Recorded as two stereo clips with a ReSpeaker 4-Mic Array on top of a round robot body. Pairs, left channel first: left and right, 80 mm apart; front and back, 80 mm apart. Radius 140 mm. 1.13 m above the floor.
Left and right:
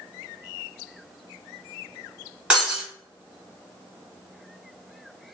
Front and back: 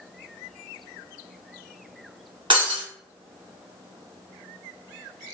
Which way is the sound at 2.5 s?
165° right.